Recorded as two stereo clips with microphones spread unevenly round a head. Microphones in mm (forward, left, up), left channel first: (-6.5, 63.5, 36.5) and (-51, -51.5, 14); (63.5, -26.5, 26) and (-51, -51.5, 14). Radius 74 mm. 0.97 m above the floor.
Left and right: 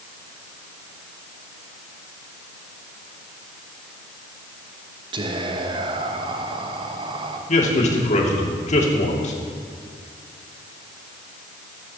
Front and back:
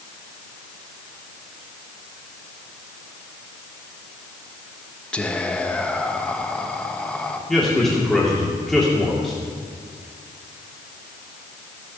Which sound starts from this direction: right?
Whispering, at 5.1 s.